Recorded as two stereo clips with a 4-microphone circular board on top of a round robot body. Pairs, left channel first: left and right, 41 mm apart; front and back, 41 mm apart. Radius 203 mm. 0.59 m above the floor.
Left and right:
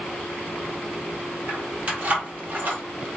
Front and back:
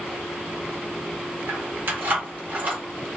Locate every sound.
1.5 s keys jangling: 150° right, 1.7 m; by 2.8 s 130° right, 1.1 m